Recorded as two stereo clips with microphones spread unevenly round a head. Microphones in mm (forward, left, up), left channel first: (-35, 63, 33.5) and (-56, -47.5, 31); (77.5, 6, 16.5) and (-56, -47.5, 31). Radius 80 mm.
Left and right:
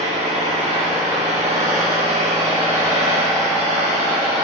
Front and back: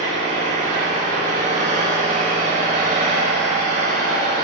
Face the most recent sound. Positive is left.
turn(degrees=-120)